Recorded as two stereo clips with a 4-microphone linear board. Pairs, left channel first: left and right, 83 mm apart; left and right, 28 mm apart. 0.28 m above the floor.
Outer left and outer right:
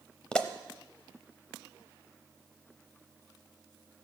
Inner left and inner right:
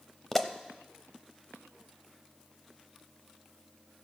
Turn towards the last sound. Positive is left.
turn(degrees=10)  # may be behind; listen again after turning